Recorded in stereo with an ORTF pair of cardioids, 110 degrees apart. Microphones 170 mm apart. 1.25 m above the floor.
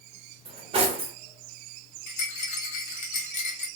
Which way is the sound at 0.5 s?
35° right.